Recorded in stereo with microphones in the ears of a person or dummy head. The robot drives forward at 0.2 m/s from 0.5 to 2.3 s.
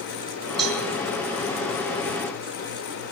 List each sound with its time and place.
0.6 s a cowbell: centre (ahead or behind), 3 m